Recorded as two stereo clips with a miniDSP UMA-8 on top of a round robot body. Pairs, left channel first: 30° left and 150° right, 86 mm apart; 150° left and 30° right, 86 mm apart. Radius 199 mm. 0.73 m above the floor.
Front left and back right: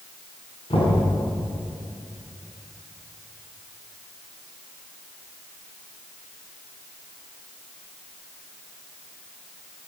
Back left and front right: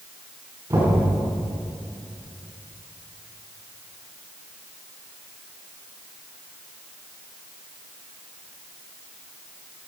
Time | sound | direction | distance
0.7 | knocking | 25° left | 6.5 m